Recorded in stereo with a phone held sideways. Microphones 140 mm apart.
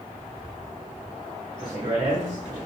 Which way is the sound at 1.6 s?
60° right (ahead or behind).